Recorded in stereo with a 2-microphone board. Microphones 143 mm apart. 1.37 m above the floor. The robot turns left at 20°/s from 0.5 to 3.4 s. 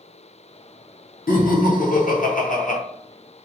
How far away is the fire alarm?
I don't hear a fire alarm.